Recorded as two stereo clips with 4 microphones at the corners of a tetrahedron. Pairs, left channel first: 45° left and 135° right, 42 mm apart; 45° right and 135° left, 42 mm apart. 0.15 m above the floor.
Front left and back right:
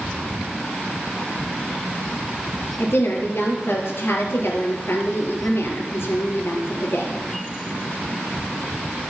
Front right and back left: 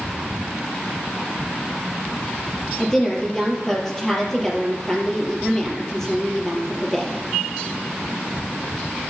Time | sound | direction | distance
2.8 | a woman speaking | 30° left | 4 m